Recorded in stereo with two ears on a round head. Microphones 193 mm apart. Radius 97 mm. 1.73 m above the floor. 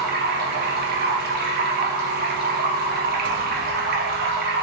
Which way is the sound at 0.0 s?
45° right (ahead or behind).